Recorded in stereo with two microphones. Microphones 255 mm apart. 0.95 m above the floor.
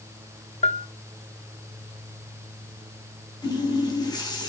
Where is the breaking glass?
I don't hear breaking glass.